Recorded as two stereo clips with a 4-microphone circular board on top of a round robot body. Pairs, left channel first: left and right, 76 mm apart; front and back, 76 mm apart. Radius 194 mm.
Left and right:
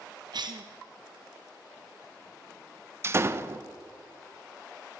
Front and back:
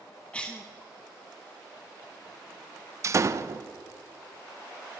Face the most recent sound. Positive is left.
turn(degrees=-140)